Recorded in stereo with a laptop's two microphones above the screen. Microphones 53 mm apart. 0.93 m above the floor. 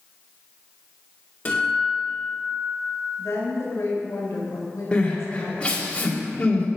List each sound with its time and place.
1.4 s a guitar: 30° left (ahead or behind), 2.5 m
3.2 s a woman speaking: 70° left (ahead or behind), 3.5 m
4.9 s crying: 20° left (ahead or behind), 1.7 m